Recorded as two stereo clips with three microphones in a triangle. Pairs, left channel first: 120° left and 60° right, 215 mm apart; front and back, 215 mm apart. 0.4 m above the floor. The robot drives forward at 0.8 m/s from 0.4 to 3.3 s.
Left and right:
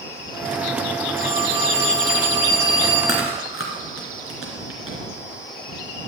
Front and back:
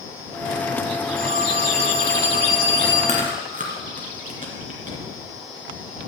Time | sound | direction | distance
1.2 | a phone ringing | 130° left | 4 m
3.1 | chewing | 125° left | 2.5 m